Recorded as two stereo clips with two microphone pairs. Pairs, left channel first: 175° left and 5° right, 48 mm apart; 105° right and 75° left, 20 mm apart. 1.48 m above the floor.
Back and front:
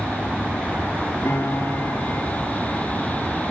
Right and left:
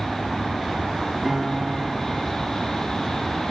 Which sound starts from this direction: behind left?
A piano, at 1.2 s.